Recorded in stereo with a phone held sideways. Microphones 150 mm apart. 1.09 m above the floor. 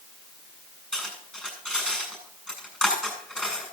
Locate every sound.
0.9 s cutlery clinking: 5° left (ahead or behind), 7 m